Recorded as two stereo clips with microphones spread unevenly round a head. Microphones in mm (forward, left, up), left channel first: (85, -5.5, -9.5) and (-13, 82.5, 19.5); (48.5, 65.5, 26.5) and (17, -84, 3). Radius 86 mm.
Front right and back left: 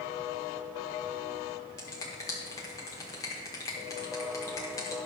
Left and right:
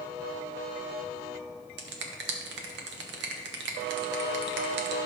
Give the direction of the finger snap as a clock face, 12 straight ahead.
4 o'clock.